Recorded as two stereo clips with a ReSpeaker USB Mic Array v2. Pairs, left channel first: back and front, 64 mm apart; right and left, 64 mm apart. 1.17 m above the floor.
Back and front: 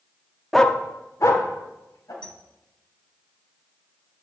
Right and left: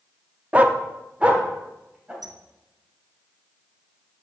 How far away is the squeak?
About 0.8 m.